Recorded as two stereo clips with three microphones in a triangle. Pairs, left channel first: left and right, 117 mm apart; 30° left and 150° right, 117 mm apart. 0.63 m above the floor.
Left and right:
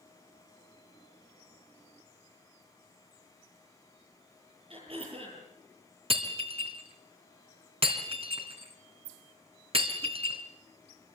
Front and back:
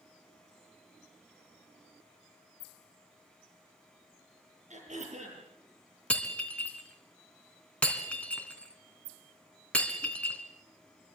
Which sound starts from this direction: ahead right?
Breaking glass, at 6.1 s.